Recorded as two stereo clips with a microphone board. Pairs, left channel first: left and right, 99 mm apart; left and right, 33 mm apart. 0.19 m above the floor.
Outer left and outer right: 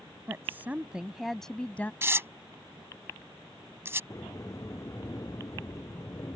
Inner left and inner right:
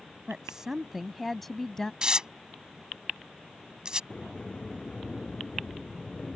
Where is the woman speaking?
25° right (ahead or behind); by 1.9 s 20° left (ahead or behind).